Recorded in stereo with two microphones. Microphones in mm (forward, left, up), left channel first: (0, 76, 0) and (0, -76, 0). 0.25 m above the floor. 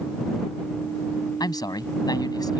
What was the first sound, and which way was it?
A man speaking, 25° left (ahead or behind).